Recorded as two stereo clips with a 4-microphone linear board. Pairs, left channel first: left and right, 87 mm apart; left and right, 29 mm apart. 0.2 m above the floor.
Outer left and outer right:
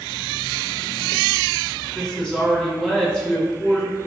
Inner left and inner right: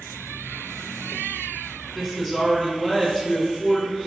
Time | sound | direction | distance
1.9 | a woman speaking | 5° left (ahead or behind) | 1.0 m